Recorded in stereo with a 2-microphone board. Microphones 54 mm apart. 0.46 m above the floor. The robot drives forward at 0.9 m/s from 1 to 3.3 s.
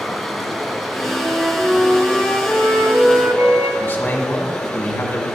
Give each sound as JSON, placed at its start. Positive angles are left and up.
{"t": 0.0, "sound": "running water", "side_deg": 0, "distance_m": 1.0}
{"t": 1.1, "sound": "a flute", "side_deg": -25, "distance_m": 3.0}
{"t": 3.8, "sound": "a man speaking", "side_deg": 40, "distance_m": 1.2}